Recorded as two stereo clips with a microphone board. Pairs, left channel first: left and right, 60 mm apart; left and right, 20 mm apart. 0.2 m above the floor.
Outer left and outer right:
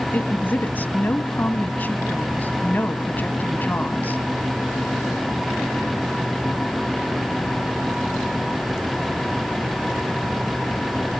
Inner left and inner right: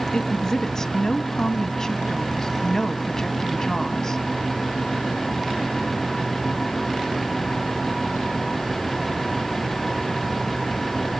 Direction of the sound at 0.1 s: 30° left (ahead or behind).